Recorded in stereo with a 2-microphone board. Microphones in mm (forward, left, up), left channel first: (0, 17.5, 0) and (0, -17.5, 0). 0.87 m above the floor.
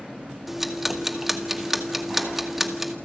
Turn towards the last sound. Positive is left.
turn(degrees=-10)  # may be behind; listen again after turning